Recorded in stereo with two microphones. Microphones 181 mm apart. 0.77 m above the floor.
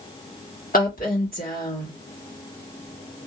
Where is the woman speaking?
50° left (ahead or behind), 1.7 m.